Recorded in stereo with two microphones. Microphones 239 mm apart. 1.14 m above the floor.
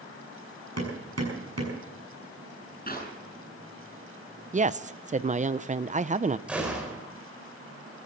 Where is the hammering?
80° right, 6.5 m.